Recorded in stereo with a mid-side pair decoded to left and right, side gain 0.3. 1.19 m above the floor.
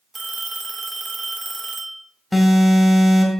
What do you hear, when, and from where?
0.1 s a phone ringing: 35° right, 2.5 m
2.3 s an alarm: 15° left, 4 m